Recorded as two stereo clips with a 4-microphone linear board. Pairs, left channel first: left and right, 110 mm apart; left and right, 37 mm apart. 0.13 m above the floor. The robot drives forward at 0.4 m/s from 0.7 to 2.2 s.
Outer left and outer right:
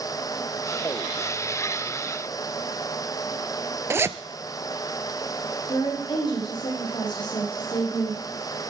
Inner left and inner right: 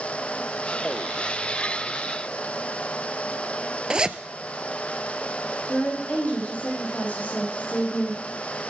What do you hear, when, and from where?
3.9 s a zipper: 25° right (ahead or behind), 0.6 m
5.7 s a woman speaking: 45° left (ahead or behind), 6 m